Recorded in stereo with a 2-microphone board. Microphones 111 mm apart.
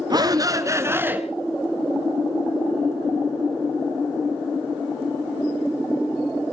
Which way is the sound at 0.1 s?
40° right (ahead or behind).